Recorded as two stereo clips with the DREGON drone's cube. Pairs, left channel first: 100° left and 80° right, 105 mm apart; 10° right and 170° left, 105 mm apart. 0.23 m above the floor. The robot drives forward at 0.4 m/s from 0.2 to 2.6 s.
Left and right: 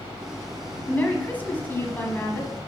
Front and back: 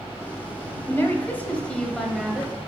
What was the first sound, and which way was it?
A woman speaking, 35° left.